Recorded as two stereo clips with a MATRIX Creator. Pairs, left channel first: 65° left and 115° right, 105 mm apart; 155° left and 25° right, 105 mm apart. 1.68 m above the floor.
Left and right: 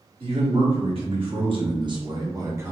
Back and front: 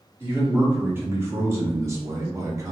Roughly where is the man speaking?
Right.